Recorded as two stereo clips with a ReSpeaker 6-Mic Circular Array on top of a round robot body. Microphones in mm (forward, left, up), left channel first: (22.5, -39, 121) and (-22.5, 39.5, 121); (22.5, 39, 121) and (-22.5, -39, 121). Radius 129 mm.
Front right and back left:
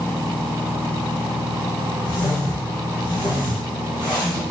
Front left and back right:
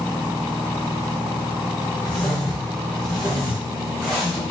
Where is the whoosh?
20° right, 1.2 m.